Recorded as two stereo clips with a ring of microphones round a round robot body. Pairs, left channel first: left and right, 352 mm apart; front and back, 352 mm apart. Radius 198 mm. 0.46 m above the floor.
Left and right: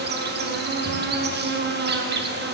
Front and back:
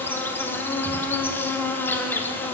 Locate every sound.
0.0 s an insect: 80° right, 0.9 m